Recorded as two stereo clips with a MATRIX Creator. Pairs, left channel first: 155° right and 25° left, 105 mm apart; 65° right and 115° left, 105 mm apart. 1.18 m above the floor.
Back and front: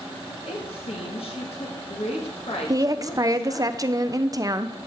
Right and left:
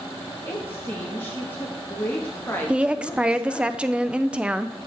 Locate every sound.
0.5 s a woman speaking: 140° right, 1.7 m
2.7 s a woman speaking: 40° left, 0.5 m